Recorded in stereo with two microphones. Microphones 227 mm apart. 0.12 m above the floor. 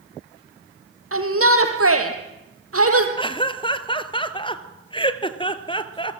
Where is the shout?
65° right (ahead or behind), 4 m; by 3.1 s 75° right (ahead or behind), 3.5 m.